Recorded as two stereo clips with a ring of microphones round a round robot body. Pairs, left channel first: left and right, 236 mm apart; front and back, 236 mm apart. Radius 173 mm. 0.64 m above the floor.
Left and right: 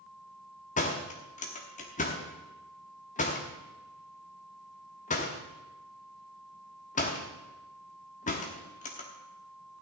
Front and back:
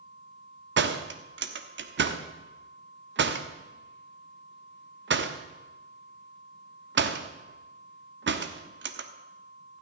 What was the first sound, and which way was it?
A door slam, 150° left.